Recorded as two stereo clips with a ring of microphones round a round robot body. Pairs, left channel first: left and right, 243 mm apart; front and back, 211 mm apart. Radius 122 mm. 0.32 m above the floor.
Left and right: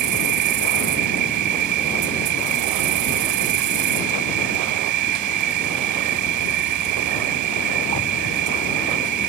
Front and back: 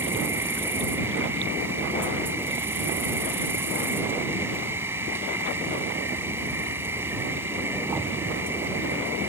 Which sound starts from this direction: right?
An insect, at 0.0 s.